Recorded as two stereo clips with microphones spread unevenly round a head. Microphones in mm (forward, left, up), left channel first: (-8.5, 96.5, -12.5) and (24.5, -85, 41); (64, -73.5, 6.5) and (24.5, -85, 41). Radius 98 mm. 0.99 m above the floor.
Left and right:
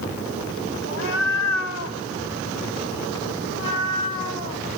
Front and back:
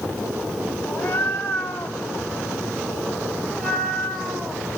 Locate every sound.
0.8 s a cat meowing: 70° left, 2.5 m; by 4.6 s 130° left, 3 m